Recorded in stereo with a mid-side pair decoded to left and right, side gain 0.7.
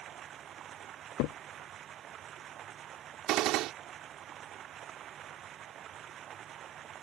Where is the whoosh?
No whoosh in this recording.